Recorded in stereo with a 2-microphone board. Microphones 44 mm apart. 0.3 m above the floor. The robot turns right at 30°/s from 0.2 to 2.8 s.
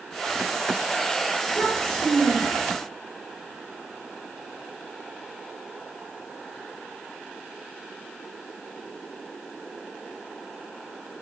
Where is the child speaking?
175° left, 4.5 m; by 2.8 s 145° right, 4.5 m.